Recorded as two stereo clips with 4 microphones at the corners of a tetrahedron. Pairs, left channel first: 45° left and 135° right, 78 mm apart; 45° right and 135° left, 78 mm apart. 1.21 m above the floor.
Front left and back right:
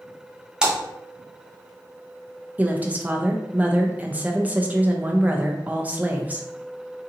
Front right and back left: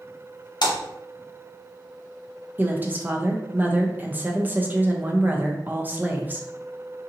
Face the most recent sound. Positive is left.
turn(degrees=175)